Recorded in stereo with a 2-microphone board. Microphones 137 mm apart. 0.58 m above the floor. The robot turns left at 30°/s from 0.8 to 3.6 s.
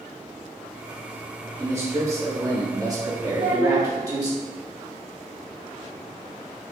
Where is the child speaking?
60° right (ahead or behind), 1.3 m; by 3.9 s 65° right (ahead or behind), 1.3 m.